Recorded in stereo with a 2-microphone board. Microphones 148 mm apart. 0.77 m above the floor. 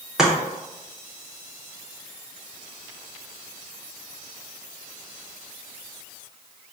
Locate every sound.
0.2 s chopping: 5° right (ahead or behind), 0.9 m